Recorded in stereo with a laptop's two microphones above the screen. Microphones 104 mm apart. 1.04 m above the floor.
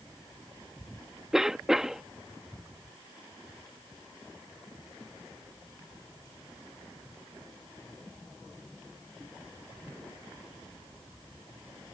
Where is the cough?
5° right (ahead or behind).